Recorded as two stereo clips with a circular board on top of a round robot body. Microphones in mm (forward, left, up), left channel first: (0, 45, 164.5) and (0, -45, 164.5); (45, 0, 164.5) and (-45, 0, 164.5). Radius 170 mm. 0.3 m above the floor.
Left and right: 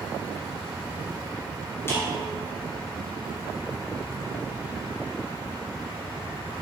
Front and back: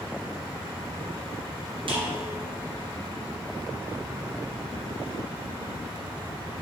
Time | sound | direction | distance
1.9 | a snare drum | 150° left | 1.9 m